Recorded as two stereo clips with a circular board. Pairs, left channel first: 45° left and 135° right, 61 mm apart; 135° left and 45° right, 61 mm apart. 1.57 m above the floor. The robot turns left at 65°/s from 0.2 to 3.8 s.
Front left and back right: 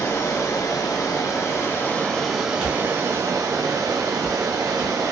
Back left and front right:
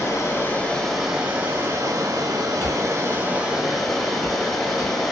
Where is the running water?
95° left, 0.8 m; by 5.1 s 140° right, 0.8 m.